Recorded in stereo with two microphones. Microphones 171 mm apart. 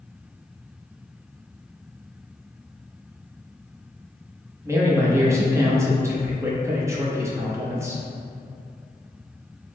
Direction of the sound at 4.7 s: 15° right (ahead or behind).